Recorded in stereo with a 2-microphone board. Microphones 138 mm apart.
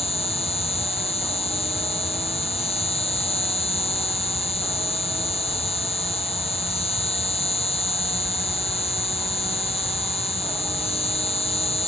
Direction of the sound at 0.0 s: 45° left (ahead or behind).